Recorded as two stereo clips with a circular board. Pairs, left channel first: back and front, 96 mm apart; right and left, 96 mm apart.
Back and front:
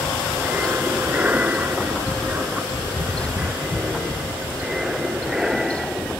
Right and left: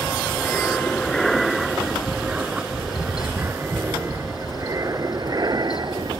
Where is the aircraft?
45° right; by 6.2 s 85° left.